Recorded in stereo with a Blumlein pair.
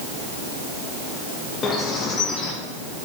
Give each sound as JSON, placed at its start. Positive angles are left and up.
{"t": 1.6, "sound": "a bird", "azimuth_deg": 20, "distance_m": 1.6}